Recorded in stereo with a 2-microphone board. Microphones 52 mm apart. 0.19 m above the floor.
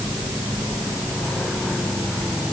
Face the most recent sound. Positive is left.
No sound to turn to.